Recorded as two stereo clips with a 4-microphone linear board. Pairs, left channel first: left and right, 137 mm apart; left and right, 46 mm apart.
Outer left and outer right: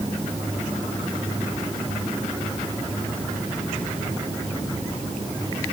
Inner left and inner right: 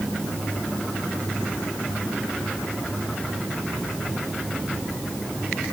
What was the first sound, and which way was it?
Only background noise.